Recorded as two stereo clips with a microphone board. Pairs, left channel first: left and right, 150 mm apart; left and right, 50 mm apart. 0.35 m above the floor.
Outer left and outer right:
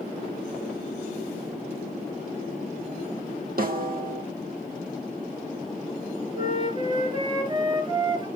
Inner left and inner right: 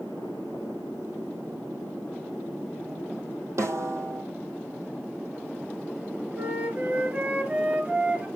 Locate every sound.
3.6 s a snare drum: 85° right, 2 m
6.3 s a flute: 30° right (ahead or behind), 3 m